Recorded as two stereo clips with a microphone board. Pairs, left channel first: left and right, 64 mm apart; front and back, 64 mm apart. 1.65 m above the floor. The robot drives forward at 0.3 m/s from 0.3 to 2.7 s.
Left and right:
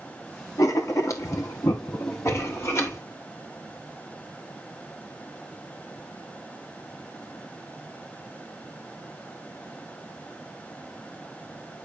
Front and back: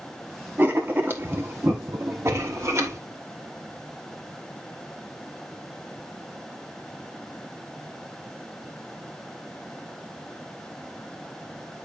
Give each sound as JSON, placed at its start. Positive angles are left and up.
{"t": 0.6, "sound": "writing", "azimuth_deg": 120, "distance_m": 1.5}